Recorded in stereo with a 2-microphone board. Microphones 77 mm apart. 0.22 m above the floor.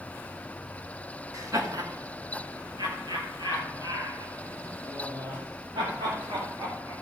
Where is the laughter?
45° right (ahead or behind), 1.7 m; by 6.9 s 85° right, 8 m.